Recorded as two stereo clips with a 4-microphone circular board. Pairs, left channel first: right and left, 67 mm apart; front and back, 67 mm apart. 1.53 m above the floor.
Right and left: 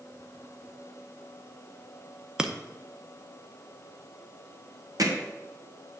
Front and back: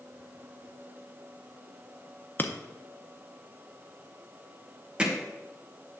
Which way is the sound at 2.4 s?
25° left.